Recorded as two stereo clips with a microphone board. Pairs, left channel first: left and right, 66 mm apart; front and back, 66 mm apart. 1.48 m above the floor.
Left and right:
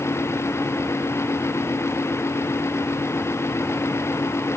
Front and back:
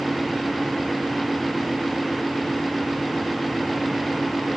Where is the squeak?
I don't hear a squeak.